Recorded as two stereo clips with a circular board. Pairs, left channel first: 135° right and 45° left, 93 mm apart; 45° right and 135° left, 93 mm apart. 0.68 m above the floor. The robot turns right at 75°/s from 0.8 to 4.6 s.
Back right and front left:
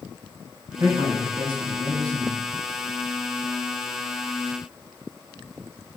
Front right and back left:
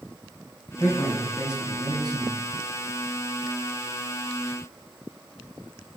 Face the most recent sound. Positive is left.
turn(degrees=-80)